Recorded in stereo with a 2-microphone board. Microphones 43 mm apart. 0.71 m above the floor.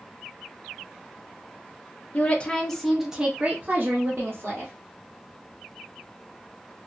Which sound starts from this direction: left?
A woman speaking, at 2.1 s.